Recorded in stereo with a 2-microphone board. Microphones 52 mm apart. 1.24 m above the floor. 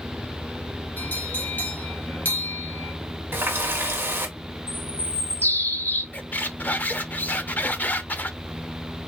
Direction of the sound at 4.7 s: 35° left (ahead or behind).